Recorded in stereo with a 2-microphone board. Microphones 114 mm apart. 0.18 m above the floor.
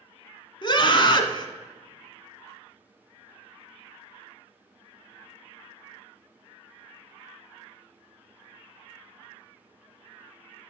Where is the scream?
45° left (ahead or behind), 1.4 m.